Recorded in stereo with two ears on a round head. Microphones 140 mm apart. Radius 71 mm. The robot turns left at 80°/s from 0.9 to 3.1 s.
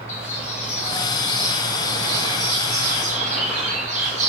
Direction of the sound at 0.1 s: 40° left.